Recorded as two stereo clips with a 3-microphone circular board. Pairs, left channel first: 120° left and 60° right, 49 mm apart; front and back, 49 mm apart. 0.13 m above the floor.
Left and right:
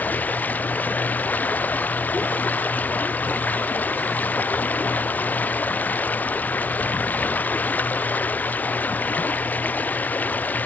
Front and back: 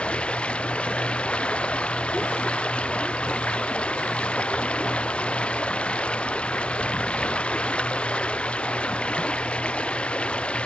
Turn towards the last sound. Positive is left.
turn(degrees=65)